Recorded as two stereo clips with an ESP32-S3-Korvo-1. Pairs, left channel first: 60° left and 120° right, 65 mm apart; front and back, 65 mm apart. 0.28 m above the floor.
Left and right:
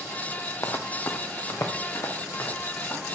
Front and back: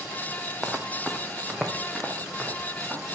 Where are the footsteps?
95° left, 0.8 m; by 3.0 s 90° left, 2 m.